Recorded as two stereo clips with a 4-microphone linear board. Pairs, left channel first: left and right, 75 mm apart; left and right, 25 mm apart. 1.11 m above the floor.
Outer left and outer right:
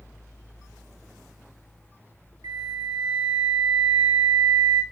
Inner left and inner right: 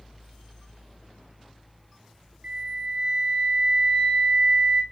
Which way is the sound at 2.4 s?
75° right (ahead or behind).